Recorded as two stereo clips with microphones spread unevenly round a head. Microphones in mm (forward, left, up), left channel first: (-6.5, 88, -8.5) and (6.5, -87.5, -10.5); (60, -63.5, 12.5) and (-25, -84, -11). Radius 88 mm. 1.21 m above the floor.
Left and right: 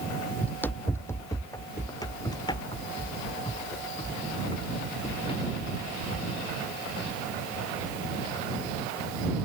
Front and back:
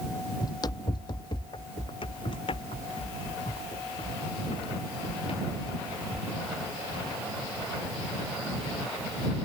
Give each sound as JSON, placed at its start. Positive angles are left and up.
{"t": 0.4, "sound": "running footsteps", "azimuth_deg": 15}